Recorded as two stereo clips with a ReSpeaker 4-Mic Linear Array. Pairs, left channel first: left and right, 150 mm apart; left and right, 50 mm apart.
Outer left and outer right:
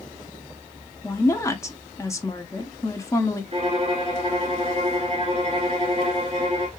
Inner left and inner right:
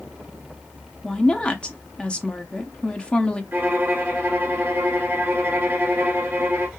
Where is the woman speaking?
20° left (ahead or behind), 0.7 m.